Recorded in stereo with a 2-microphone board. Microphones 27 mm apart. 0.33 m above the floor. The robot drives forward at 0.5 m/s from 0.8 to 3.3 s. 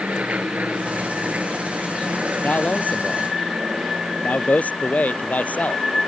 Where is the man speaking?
80° left.